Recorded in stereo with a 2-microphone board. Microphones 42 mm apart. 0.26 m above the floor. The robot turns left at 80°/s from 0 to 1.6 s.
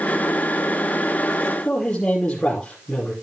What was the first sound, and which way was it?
A man speaking, 20° left (ahead or behind).